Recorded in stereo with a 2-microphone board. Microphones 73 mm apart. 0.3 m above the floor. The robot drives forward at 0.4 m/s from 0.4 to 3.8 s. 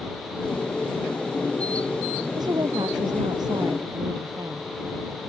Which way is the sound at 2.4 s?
75° right (ahead or behind).